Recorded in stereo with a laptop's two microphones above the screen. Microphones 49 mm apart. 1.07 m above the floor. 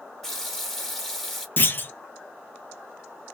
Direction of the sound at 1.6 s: 40° left (ahead or behind).